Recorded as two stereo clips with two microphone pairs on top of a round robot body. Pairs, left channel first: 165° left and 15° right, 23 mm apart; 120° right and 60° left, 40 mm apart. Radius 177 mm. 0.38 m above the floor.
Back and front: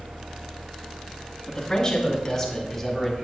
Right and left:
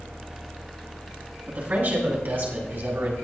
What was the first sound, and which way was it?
A man speaking, 100° left.